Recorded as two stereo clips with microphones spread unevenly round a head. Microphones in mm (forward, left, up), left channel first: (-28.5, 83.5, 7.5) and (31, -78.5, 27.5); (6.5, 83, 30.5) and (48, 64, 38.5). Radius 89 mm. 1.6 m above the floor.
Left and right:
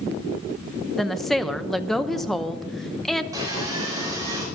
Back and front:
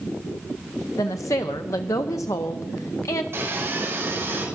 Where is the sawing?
Straight ahead, 5.5 m.